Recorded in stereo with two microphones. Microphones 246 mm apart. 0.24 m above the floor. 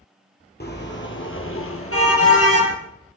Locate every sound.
0.6 s a car horn: 40° left (ahead or behind), 2.5 m; by 2.8 s 75° left (ahead or behind), 3 m